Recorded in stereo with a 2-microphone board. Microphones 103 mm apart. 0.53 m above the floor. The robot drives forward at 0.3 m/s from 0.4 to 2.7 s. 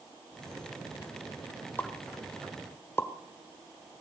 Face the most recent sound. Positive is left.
turn(degrees=25)  # may be behind; listen again after turning